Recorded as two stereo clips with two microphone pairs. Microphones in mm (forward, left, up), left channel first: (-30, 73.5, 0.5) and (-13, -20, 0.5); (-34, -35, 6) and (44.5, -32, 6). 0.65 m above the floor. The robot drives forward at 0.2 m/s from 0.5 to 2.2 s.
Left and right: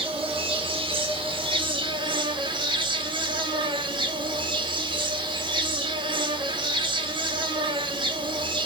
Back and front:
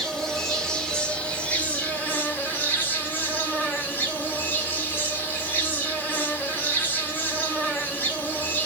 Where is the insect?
90° right, 1.0 m; by 8.7 s 110° right, 1.1 m.